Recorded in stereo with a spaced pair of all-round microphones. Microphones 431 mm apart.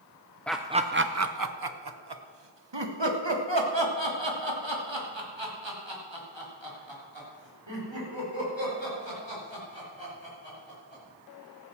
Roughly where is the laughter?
Centre.